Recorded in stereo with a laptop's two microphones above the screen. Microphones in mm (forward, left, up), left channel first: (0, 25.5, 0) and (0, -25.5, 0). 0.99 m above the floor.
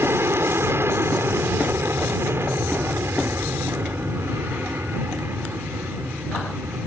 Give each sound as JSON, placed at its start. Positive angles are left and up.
{"t": 0.0, "sound": "an aircraft", "side_deg": -50}